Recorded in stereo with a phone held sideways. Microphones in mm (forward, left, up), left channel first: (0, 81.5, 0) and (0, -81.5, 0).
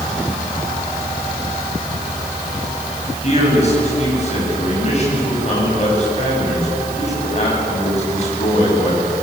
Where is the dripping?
I don't hear dripping.